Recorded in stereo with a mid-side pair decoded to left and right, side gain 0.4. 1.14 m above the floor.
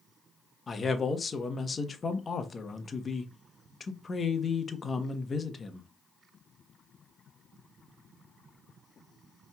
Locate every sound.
0.7 s a man speaking: 40° left, 1.0 m